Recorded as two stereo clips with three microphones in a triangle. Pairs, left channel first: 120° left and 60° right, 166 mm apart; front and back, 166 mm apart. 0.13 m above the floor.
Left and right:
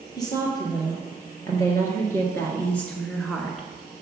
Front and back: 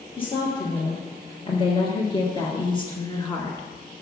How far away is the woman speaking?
About 2.5 m.